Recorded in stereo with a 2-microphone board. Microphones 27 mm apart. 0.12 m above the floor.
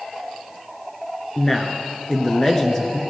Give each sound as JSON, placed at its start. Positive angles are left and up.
{"t": 1.4, "sound": "a man speaking", "side_deg": 20, "distance_m": 1.4}